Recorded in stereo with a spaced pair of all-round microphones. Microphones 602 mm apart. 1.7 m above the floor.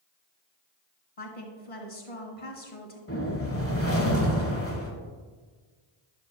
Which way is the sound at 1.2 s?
60° left (ahead or behind).